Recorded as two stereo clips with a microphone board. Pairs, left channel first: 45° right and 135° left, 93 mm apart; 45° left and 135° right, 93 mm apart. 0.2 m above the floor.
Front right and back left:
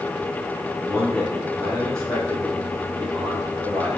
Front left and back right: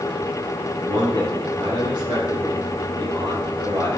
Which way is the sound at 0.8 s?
130° right.